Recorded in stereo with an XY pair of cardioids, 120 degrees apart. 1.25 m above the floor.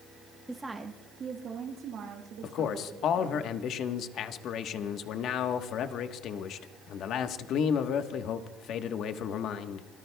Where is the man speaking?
65° left, 1.2 m.